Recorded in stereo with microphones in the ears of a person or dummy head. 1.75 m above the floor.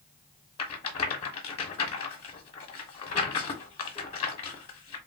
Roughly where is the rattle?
Left.